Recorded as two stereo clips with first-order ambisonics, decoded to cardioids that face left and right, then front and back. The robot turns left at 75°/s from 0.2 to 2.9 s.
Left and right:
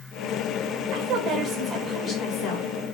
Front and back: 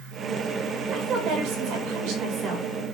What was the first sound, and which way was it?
A woman speaking, 110° right.